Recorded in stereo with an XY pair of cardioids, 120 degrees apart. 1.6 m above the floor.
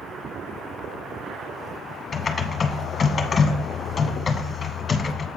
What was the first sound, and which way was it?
Typing on a keyboard, 30° left.